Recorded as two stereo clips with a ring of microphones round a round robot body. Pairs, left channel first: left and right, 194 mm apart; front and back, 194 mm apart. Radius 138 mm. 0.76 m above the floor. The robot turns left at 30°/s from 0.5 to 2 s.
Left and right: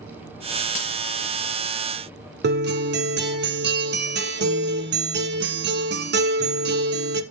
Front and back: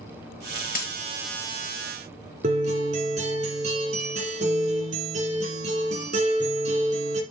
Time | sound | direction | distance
0.8 | a dropped coin | 40° left | 4 m
2.4 | a guitar | 115° right | 1.5 m